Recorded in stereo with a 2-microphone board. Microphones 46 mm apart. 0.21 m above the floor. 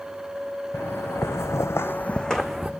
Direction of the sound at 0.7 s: 60° left (ahead or behind).